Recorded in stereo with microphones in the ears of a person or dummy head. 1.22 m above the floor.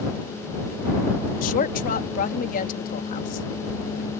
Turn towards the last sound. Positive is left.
turn(degrees=45)  # may be behind; listen again after turning